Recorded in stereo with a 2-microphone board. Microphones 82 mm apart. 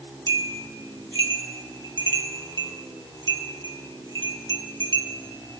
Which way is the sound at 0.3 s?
70° right (ahead or behind).